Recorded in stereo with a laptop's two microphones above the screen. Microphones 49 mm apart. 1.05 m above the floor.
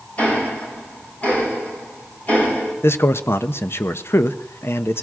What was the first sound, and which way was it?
Ticking, 35° left (ahead or behind).